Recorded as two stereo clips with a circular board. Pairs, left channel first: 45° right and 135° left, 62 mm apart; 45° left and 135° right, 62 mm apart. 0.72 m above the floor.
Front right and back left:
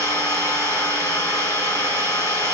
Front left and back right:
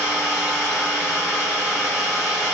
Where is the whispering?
I don't hear whispering.